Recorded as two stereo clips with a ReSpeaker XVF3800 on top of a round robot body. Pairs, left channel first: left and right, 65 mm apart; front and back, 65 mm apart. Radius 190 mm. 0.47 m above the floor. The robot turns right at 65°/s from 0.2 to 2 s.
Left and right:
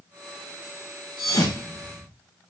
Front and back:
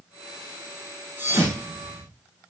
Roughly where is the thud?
Behind left.